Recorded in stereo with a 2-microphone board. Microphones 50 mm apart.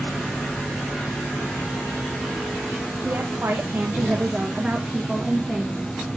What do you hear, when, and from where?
3.0 s a woman speaking: 60° right (ahead or behind), 1.4 m; by 5.8 s 5° left (ahead or behind), 1.9 m